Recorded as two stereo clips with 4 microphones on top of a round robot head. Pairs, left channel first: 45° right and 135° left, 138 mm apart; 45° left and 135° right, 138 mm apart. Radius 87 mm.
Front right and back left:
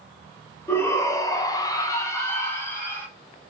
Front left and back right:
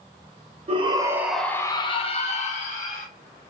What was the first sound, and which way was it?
A shout, 115° right.